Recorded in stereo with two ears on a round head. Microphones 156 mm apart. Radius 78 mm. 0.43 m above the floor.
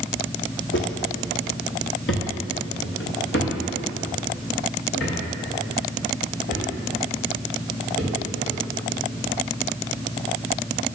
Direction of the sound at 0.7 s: 70° left (ahead or behind).